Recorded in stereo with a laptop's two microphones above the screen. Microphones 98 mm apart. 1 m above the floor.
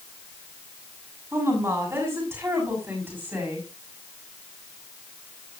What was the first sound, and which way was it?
A woman speaking, 30° right (ahead or behind).